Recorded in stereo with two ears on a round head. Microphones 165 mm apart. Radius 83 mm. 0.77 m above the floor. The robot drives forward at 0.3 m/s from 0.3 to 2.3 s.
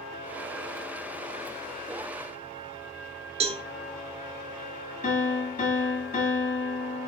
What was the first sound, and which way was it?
A cowbell, 35° right (ahead or behind).